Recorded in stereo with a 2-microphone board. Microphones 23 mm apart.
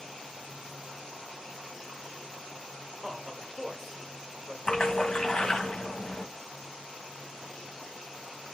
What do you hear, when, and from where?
3.0 s a man speaking: 20° right (ahead or behind), 1.5 m
4.7 s a splash: 40° left (ahead or behind), 1.4 m